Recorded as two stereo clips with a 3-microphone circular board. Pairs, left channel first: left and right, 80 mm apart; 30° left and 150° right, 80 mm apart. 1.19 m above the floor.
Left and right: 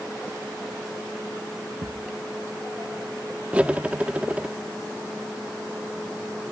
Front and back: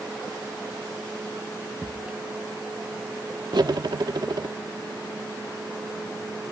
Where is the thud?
80° right.